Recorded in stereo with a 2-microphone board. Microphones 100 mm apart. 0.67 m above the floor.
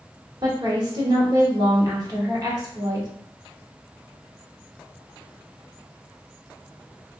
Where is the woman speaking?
40° right (ahead or behind), 1.1 m.